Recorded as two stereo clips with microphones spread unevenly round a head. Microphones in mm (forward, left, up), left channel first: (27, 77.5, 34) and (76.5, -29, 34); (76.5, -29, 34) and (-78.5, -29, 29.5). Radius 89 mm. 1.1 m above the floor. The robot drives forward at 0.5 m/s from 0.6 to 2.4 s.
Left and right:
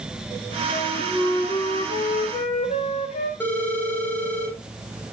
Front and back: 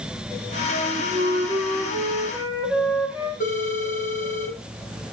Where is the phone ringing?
40° left, 3 m.